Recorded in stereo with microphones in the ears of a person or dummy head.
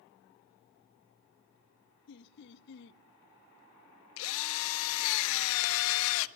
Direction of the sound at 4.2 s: 70° left (ahead or behind).